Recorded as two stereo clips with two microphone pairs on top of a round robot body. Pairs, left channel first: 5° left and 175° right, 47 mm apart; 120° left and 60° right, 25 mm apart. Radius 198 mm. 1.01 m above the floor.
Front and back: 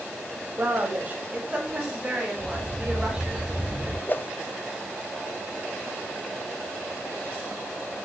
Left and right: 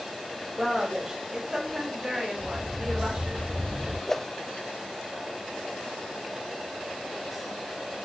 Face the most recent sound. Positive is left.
turn(degrees=45)